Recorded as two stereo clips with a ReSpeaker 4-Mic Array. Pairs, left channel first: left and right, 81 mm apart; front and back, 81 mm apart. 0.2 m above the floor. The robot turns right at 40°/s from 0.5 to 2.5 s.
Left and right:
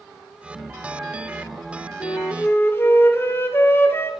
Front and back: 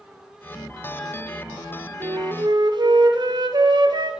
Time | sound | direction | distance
2.0 | a flute | 130° left | 0.6 m